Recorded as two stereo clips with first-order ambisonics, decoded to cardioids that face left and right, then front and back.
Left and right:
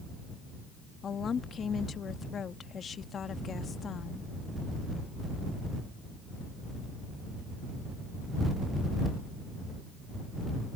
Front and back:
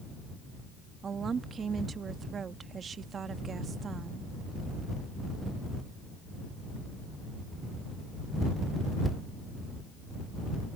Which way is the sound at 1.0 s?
135° left.